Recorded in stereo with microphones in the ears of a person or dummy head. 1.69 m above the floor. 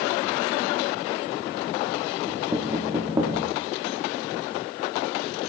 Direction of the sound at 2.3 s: 15° right (ahead or behind).